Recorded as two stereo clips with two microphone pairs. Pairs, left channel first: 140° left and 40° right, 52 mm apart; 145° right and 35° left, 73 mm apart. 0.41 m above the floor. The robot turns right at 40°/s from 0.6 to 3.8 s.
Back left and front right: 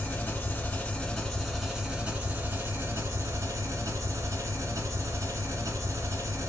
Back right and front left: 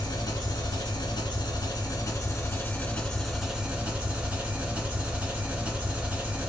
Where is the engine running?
165° right, 1.4 m; by 6.5 s 35° right, 1.4 m.